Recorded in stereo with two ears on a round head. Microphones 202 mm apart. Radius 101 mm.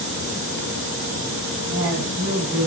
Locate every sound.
1.7 s a woman speaking: 70° right (ahead or behind), 6.5 m